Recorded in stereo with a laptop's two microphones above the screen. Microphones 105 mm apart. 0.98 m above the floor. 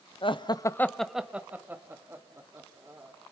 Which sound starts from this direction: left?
Laughter, at 0.2 s.